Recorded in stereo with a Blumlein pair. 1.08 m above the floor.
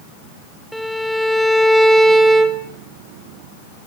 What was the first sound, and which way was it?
A violin, straight ahead.